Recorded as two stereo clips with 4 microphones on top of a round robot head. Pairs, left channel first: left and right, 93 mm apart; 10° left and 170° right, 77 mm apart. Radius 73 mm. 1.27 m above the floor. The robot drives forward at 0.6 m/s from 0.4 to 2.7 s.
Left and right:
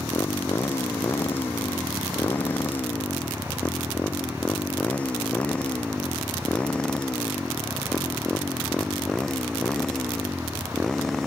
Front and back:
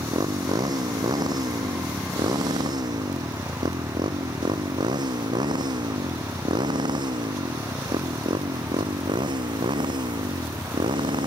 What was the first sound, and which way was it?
A motorcycle, 160° left.